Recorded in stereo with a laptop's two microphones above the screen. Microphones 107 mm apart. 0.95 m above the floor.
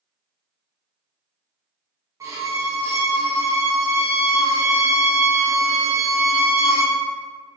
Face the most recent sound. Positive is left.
turn(degrees=-30)  # may be behind; listen again after turning